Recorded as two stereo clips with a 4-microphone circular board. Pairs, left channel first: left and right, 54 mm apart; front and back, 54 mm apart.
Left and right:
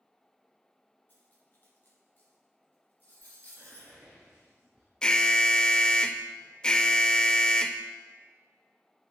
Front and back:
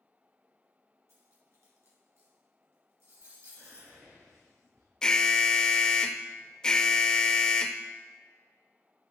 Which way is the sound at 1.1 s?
145° left.